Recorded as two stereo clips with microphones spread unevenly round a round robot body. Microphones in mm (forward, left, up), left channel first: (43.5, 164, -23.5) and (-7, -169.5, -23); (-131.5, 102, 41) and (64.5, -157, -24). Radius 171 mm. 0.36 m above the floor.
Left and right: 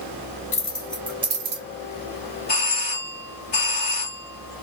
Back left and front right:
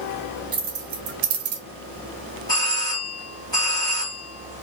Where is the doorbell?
40° left, 1.5 m.